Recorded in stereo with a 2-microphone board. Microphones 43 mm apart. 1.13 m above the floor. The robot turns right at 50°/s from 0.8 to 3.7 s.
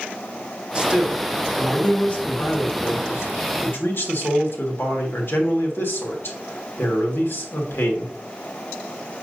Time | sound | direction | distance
0.8 | a man speaking | 25° right | 1.8 m